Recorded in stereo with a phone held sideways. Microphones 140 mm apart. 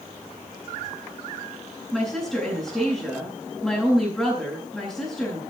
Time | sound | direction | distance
1.9 | a woman speaking | centre (ahead or behind) | 9.5 m